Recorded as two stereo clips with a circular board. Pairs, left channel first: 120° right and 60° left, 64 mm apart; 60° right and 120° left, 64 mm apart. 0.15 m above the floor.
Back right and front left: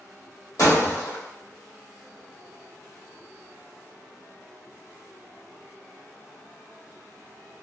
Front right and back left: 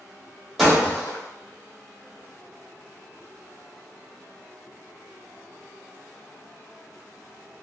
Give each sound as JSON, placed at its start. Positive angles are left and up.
{"t": 0.6, "sound": "breaking glass", "azimuth_deg": -155, "distance_m": 1.6}